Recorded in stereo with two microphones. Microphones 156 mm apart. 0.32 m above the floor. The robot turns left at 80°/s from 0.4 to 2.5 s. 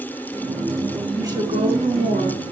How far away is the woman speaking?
About 4 m.